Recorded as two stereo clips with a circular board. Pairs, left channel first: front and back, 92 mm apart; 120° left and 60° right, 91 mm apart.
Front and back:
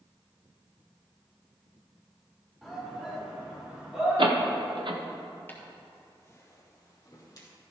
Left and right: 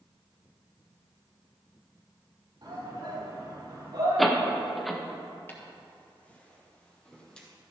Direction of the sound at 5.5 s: 60° left.